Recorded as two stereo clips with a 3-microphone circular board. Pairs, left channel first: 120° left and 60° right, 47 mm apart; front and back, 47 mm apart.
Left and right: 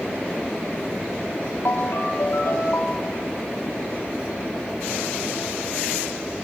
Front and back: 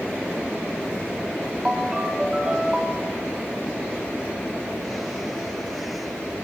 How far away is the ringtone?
About 1.9 m.